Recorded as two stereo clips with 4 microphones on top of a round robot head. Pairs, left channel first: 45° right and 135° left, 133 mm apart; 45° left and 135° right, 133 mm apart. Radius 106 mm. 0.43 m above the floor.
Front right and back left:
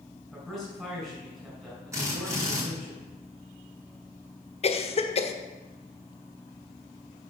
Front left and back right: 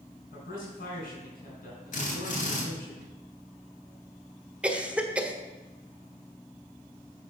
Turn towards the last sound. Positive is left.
turn(degrees=-55)